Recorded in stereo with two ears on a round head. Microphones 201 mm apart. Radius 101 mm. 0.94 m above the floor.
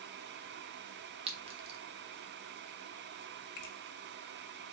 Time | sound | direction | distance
1.3 | a clink | 25° right (ahead or behind) | 0.9 m
3.6 | a finger snap | 50° left (ahead or behind) | 1.0 m